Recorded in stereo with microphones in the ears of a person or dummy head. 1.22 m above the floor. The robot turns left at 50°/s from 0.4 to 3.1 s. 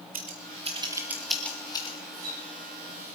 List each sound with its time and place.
0.1 s scissors: 45° right (ahead or behind), 2 m; by 2.0 s 30° left (ahead or behind), 2 m
2.1 s a splash: 75° right (ahead or behind), 7.5 m; by 3.2 s 55° right (ahead or behind), 7.5 m